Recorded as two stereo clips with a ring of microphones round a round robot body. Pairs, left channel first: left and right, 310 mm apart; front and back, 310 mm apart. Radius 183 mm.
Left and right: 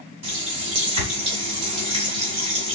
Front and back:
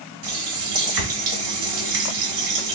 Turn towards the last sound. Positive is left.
turn(degrees=-135)